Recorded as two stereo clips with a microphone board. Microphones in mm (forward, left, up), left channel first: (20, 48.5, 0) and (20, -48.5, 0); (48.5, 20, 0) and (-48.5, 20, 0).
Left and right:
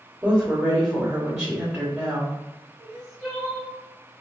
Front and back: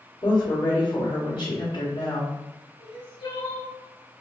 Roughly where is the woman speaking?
Ahead.